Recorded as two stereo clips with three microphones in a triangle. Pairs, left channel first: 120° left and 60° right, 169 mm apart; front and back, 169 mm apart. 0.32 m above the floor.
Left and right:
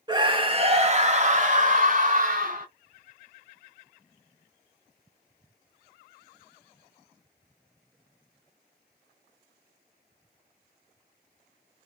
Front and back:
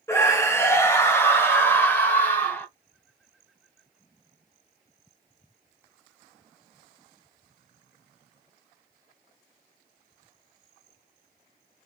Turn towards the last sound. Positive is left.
turn(degrees=-80)